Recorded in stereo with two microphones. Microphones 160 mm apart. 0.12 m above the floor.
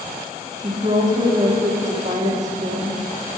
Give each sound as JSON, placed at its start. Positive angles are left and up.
{"t": 0.6, "sound": "a woman speaking", "side_deg": -45, "distance_m": 5.0}